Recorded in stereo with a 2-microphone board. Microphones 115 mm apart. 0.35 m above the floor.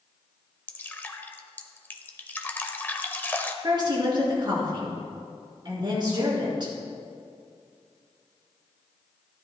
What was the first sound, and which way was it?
Dripping, 15° left (ahead or behind).